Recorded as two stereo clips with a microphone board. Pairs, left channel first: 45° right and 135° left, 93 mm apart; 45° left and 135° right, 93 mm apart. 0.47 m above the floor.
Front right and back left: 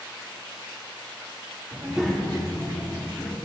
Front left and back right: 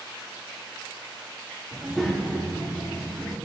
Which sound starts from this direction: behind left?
A child speaking, at 1.7 s.